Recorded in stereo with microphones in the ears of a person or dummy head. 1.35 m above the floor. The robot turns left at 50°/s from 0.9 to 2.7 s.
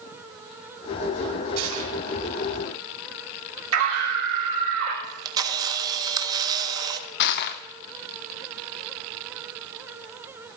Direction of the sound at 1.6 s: 65° right (ahead or behind).